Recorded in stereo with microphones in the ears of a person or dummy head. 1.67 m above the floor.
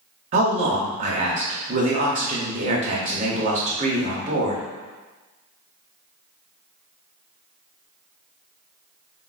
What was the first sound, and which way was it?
A man speaking, 50° right (ahead or behind).